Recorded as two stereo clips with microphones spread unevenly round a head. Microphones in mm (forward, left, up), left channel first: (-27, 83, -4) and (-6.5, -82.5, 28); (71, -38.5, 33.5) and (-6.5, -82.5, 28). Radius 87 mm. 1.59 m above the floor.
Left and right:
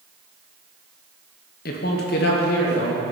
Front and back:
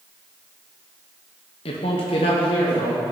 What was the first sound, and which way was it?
A man speaking, 60° left.